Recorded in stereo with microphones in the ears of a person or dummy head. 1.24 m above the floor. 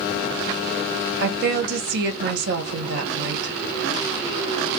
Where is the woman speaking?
60° right (ahead or behind), 1.4 m.